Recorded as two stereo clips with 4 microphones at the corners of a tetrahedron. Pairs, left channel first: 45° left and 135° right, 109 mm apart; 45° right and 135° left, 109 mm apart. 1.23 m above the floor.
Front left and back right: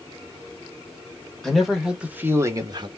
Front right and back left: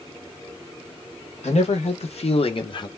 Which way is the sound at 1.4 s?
45° right.